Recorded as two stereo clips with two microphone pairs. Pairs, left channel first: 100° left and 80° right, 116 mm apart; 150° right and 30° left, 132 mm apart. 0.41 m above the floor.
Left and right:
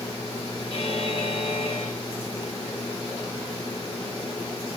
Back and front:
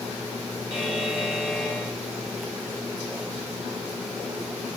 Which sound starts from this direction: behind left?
A buzzer, at 0.7 s.